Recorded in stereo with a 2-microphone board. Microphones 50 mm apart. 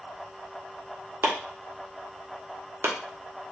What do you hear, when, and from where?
1.2 s chopping: 65° right (ahead or behind), 0.9 m